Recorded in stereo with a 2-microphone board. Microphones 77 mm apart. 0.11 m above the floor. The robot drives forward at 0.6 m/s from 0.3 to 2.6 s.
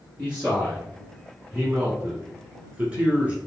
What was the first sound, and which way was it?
A man speaking, 15° right (ahead or behind).